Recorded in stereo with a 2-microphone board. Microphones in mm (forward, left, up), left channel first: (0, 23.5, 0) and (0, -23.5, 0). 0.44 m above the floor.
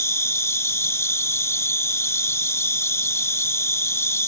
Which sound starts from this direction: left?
An insect, at 0.0 s.